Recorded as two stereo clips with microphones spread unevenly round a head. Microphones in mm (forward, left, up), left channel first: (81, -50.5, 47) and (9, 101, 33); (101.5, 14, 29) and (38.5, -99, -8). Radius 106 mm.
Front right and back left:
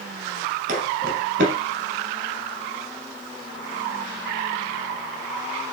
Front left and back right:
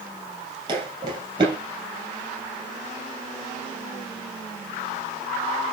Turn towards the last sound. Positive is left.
turn(degrees=170)